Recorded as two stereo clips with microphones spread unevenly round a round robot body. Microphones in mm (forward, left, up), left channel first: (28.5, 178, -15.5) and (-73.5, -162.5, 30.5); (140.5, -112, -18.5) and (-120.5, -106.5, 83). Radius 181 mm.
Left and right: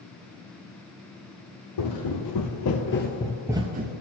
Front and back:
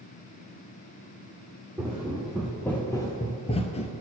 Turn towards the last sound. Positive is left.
turn(degrees=-85)